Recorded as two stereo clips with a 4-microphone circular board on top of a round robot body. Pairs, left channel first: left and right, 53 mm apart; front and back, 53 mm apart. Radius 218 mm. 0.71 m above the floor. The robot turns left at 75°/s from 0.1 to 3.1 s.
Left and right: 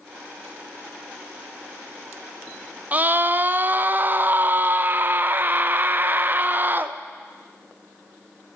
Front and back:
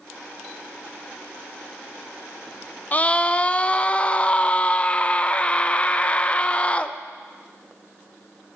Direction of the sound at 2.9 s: 40° right.